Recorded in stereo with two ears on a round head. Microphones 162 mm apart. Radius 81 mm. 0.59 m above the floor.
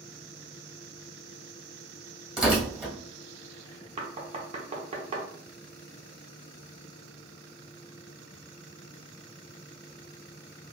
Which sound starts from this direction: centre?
Tearing paper, at 2.4 s.